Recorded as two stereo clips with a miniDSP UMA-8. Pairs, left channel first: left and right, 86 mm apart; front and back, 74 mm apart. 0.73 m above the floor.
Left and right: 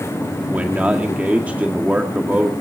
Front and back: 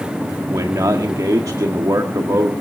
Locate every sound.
0.5 s a man speaking: 160° right, 1.8 m